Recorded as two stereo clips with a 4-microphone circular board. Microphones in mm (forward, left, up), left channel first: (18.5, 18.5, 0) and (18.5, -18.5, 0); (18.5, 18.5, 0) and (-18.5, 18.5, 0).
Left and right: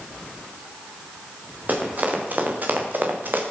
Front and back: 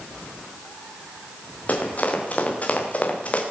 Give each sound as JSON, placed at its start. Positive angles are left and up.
{"t": 1.7, "sound": "running footsteps", "azimuth_deg": -50, "distance_m": 5.5}